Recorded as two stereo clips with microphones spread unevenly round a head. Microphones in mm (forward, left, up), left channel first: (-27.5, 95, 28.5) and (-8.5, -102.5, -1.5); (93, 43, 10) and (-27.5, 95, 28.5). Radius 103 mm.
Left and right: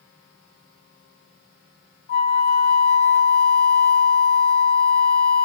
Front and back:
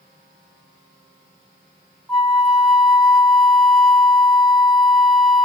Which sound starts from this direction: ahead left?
A flute, at 2.1 s.